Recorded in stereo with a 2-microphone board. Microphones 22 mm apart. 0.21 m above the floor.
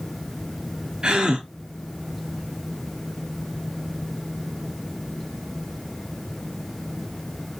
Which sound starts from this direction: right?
A gasp, at 1.0 s.